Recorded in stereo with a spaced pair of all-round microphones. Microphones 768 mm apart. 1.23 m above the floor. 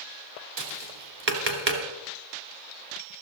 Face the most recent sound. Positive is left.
turn(degrees=-50)  # may be behind; listen again after turning